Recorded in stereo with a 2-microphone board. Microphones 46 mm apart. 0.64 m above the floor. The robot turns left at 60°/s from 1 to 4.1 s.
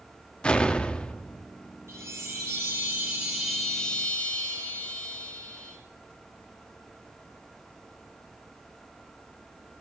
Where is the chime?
75° right, 8 m; by 5.8 s 150° left, 8 m.